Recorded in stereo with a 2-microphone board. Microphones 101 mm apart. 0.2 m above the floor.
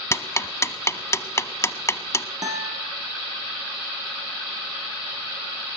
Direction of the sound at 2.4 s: 35° right (ahead or behind).